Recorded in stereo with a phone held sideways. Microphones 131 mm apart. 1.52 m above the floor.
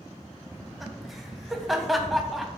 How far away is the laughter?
About 0.5 m.